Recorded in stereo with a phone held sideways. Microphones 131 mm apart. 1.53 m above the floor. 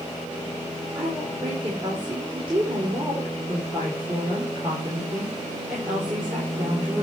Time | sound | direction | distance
0.9 | a woman speaking | 40° right (ahead or behind) | 3.5 m